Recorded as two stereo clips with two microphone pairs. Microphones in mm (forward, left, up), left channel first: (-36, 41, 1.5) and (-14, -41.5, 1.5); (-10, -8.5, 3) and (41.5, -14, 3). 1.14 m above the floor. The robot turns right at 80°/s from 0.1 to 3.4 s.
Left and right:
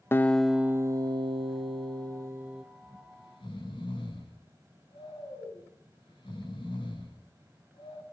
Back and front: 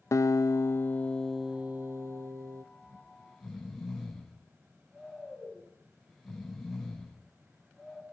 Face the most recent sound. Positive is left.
turn(degrees=85)